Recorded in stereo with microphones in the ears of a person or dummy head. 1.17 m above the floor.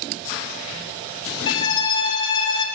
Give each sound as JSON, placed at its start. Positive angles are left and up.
{"t": 1.5, "sound": "a violin", "side_deg": 75, "distance_m": 3.5}